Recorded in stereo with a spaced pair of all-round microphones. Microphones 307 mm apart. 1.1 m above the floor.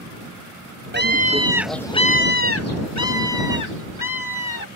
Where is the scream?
35° right (ahead or behind); by 4.7 s 80° left.